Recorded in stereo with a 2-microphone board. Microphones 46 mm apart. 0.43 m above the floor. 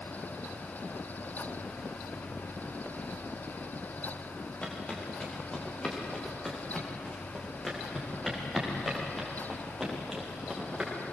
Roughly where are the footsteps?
Left.